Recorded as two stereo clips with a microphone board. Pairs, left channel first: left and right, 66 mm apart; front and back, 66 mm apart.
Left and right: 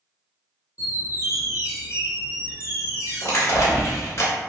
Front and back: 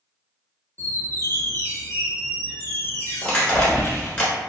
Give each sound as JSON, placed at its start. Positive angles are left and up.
{"t": 0.8, "sound": "a squeak", "azimuth_deg": 55, "distance_m": 0.8}
{"t": 3.2, "sound": "crushing", "azimuth_deg": 70, "distance_m": 1.2}